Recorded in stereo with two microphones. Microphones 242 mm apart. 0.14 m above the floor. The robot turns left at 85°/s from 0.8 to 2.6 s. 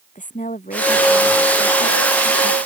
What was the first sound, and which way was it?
A woman speaking, 150° left.